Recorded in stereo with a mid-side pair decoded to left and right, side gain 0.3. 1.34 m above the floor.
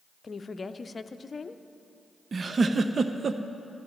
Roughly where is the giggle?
Ahead right.